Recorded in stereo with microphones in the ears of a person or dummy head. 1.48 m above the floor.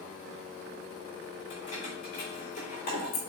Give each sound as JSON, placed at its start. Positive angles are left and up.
{"t": 1.5, "sound": "keys jangling", "side_deg": 45, "distance_m": 4.5}